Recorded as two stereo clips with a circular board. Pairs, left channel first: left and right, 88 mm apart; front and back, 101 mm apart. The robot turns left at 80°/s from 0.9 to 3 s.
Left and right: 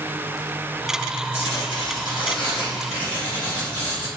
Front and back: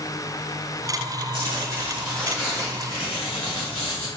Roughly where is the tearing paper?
Behind left.